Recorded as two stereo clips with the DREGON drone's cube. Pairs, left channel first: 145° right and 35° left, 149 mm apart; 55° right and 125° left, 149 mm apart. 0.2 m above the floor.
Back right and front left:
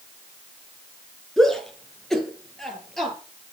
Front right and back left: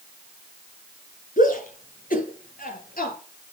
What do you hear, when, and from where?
1.4 s a shout: 60° right, 3.5 m